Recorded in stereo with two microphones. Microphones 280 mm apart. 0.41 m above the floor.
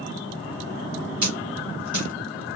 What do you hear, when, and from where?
1.2 s a dropped coin: 85° right, 1.6 m